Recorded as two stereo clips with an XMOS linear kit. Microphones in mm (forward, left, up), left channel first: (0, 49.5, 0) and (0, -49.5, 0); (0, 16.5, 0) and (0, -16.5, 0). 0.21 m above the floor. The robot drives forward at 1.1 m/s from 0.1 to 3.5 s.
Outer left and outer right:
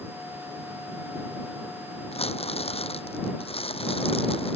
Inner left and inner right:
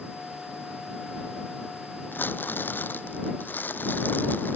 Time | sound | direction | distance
2.1 | crumpling | 85° left | ?